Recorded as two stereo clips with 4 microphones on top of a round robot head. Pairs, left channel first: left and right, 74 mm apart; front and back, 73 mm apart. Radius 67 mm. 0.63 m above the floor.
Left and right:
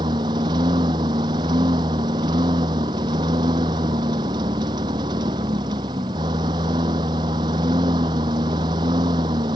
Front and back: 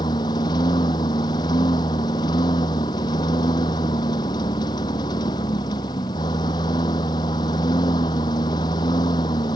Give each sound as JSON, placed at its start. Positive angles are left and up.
{"t": 0.0, "sound": "a lawn mower", "azimuth_deg": -45}